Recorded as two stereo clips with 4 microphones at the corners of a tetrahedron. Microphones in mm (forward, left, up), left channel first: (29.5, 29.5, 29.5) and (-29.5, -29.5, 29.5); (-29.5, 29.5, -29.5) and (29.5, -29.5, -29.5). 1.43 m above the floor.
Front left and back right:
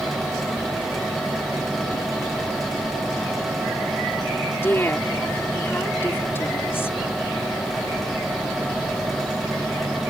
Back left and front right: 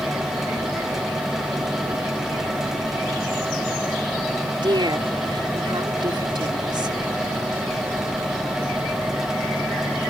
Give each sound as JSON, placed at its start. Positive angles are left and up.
{"t": 4.6, "sound": "a woman speaking", "azimuth_deg": -15}